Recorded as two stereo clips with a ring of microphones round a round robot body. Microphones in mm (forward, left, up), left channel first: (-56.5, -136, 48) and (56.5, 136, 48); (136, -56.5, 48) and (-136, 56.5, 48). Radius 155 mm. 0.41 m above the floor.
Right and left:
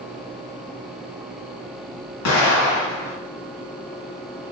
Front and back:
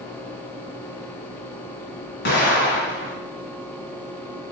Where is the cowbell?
No cowbell in this recording.